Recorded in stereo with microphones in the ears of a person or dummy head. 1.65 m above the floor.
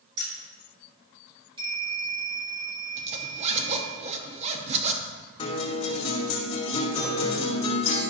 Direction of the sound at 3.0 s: 30° right (ahead or behind).